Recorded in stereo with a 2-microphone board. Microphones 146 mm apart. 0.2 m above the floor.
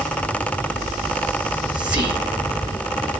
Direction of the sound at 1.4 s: 10° right (ahead or behind).